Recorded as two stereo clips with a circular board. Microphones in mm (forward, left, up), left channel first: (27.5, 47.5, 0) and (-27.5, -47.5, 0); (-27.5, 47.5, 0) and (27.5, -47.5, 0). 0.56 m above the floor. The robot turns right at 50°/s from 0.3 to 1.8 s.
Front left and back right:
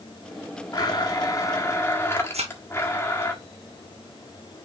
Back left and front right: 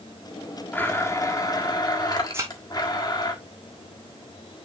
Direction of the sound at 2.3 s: 125° right.